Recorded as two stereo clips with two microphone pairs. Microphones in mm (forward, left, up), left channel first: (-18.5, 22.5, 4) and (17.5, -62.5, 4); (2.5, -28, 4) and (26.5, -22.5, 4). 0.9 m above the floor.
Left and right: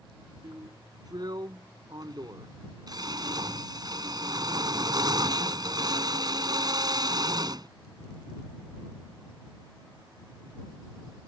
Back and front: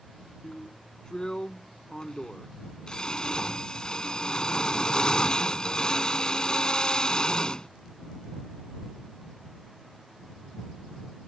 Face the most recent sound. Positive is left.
turn(degrees=-110)